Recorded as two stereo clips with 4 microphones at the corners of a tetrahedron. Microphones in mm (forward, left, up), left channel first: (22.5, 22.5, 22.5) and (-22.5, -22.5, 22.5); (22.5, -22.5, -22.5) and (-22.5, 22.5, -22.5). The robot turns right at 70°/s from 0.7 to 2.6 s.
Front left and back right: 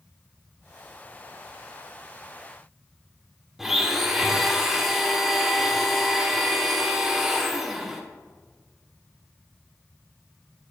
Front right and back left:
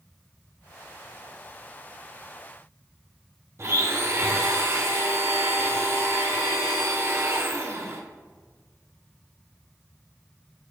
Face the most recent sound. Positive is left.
turn(degrees=140)